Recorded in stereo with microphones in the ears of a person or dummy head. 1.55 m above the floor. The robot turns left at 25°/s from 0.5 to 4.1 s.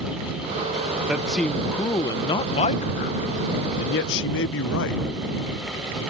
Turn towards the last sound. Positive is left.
turn(degrees=105)